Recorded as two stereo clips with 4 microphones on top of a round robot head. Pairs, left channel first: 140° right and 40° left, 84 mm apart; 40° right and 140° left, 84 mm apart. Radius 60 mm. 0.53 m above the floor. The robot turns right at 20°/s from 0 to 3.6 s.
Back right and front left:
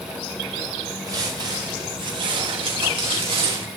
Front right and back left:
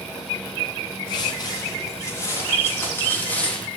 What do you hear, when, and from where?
1.1 s footsteps: 5° right, 8 m; by 3.7 s 35° left, 7 m